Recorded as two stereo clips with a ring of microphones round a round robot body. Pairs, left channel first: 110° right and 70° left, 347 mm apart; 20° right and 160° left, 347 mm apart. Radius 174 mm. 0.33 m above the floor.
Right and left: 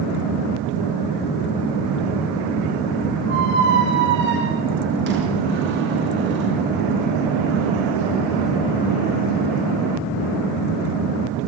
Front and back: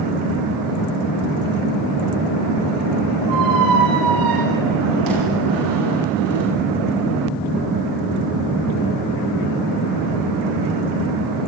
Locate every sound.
3.3 s a squeak: 125° left, 10 m